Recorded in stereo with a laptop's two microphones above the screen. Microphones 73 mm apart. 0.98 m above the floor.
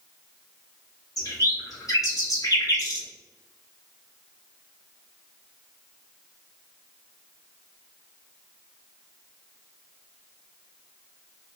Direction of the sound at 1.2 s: 55° left (ahead or behind).